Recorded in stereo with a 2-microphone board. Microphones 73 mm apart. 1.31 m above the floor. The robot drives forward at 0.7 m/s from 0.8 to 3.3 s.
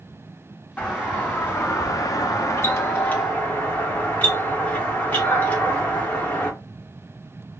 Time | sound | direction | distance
0.8 | a doorbell | 20° left (ahead or behind) | 1.1 m